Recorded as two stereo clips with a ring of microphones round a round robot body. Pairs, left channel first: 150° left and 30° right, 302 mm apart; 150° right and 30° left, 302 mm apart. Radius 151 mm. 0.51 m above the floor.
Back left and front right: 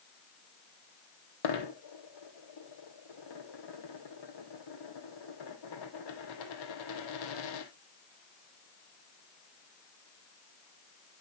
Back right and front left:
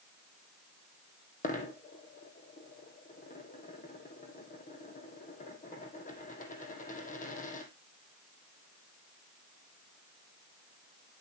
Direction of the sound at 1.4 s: 145° left.